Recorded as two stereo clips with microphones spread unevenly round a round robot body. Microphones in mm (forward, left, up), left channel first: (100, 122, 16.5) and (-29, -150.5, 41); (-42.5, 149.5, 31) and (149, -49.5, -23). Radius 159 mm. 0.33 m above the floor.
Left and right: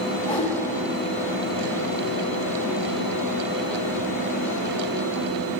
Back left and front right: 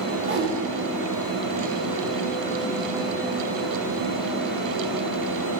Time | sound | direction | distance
0.2 | a whoosh | 5° right | 3.5 m